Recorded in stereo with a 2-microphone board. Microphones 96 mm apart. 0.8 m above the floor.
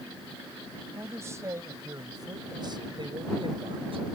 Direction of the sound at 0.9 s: 25° right (ahead or behind).